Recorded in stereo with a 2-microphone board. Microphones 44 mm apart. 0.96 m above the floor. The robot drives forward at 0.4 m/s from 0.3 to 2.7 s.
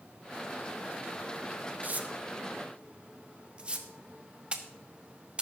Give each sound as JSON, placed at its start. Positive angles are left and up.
{"t": 1.8, "sound": "tearing paper", "side_deg": -40, "distance_m": 0.8}